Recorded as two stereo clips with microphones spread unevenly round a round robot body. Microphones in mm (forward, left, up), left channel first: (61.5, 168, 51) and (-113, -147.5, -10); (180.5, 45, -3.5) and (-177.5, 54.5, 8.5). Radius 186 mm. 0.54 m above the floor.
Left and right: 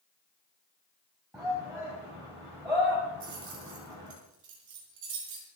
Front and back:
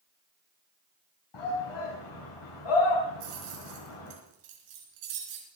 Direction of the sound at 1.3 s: 35° right.